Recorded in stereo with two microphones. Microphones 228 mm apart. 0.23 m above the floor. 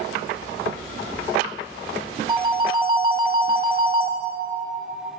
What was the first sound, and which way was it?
A phone ringing, 20° right (ahead or behind).